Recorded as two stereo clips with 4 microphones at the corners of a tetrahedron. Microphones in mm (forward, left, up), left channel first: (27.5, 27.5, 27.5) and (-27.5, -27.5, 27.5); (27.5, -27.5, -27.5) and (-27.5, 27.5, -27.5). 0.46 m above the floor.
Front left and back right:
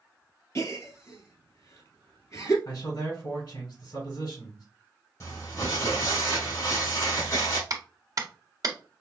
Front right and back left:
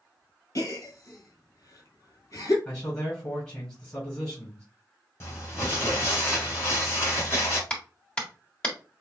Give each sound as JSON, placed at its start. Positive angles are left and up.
{"t": 0.6, "sound": "a gasp", "azimuth_deg": -5, "distance_m": 1.7}
{"t": 2.6, "sound": "a man speaking", "azimuth_deg": 20, "distance_m": 3.0}
{"t": 5.2, "sound": "crumpling", "azimuth_deg": 5, "distance_m": 2.5}
{"t": 7.7, "sound": "a clap", "azimuth_deg": -120, "distance_m": 1.4}